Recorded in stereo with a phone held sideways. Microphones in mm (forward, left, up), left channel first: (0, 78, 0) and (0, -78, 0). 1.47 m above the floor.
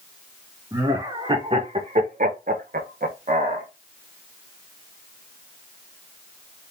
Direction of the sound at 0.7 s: 25° right (ahead or behind).